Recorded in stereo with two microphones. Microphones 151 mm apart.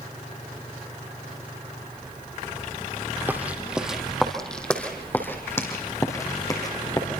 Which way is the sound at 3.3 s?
10° right (ahead or behind).